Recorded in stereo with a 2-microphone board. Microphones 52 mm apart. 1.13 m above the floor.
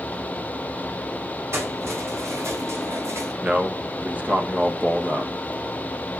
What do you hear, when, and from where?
1.5 s keys jangling: 60° right (ahead or behind), 6 m; by 3.3 s 65° right (ahead or behind), 4 m
3.4 s a man speaking: 30° right (ahead or behind), 1.3 m